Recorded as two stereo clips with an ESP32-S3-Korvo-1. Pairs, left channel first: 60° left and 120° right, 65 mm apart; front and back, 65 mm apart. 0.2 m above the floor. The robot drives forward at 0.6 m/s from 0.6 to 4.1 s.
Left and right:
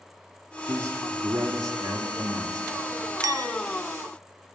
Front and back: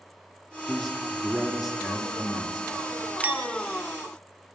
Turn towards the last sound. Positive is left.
turn(degrees=-145)